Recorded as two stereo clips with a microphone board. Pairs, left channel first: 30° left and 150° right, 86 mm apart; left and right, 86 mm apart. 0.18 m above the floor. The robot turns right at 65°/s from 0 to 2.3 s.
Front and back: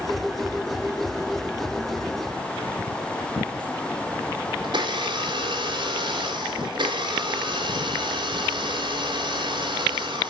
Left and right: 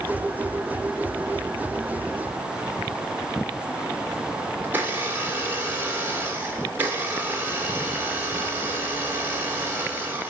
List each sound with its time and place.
4.6 s a blender: 155° right, 3.5 m